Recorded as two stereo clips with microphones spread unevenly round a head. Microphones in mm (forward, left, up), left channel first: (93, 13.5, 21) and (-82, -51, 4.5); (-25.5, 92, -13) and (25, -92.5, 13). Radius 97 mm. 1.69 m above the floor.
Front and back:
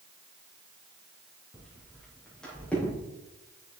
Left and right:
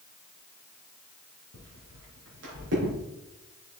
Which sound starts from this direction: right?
Footsteps, at 1.5 s.